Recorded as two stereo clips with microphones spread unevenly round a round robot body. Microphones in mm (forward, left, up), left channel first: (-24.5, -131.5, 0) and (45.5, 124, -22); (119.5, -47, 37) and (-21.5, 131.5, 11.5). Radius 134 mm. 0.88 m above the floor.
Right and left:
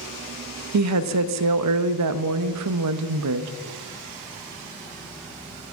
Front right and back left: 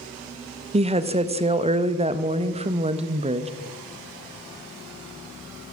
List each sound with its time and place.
0.7 s a woman speaking: 70° left, 0.6 m